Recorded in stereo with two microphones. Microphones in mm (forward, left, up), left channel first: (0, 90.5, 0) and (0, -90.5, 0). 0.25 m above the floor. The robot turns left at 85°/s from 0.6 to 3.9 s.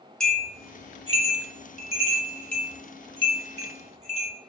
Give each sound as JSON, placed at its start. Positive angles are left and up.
{"t": 0.2, "sound": "a bell", "side_deg": 5, "distance_m": 0.6}